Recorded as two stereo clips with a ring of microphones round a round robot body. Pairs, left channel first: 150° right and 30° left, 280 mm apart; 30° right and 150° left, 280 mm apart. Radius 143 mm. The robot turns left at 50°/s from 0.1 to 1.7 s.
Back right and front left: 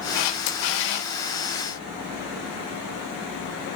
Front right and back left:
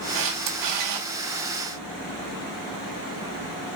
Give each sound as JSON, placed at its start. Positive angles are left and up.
{"t": 0.1, "sound": "a camera shutter", "azimuth_deg": -165, "distance_m": 4.0}